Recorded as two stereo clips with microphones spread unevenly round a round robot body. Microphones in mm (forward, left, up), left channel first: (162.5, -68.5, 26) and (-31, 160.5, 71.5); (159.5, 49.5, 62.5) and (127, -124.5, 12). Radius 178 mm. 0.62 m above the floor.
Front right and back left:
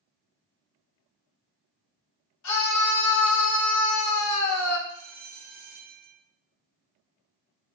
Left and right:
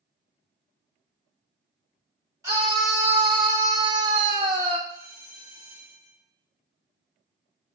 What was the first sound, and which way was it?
A scream, 30° right.